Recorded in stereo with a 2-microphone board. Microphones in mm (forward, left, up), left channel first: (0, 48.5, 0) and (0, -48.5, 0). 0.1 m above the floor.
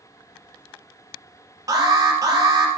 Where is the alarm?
35° right (ahead or behind), 3 m.